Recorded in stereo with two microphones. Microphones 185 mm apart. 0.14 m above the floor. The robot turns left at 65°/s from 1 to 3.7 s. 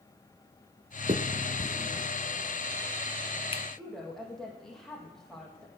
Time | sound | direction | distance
1.1 | a finger snap | 35° right (ahead or behind) | 1.0 m
3.8 | a woman speaking | 5° left (ahead or behind) | 5.5 m